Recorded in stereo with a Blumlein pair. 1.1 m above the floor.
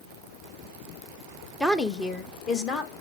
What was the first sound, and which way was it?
A woman speaking, straight ahead.